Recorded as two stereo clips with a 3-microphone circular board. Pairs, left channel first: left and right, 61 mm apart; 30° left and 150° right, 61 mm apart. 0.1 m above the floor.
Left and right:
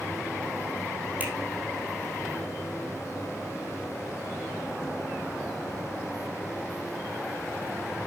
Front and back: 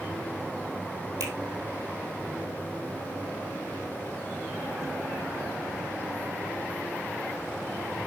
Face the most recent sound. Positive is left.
turn(degrees=-155)